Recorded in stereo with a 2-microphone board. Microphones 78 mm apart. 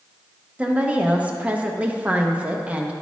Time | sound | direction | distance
0.6 | a woman speaking | 20° right (ahead or behind) | 0.6 m